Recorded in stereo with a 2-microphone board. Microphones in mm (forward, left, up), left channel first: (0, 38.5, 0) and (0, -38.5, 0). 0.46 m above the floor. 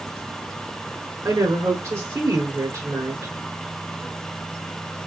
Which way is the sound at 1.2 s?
40° right (ahead or behind).